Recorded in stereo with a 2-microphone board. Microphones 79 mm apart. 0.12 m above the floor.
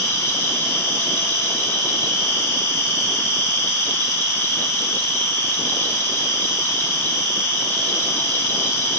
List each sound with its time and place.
0.0 s an insect: 60° right (ahead or behind), 1.6 m